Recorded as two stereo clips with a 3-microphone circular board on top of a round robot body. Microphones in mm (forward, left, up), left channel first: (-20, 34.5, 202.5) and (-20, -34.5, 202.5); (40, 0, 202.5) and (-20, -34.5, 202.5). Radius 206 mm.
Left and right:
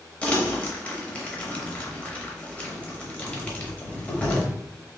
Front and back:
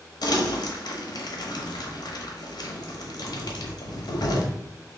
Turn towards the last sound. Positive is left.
turn(degrees=15)